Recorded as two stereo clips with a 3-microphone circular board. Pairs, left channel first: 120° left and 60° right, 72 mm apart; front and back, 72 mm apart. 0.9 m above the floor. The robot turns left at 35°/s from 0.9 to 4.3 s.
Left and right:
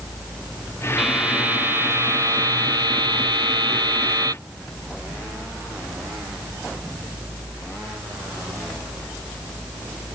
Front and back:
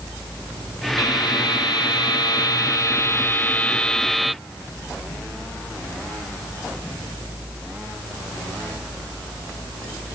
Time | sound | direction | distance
1.0 | a buzzer | 25° left | ?